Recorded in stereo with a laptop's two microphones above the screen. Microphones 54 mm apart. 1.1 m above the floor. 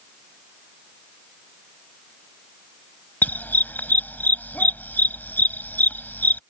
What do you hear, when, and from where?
3.2 s a dog barking: 35° left (ahead or behind)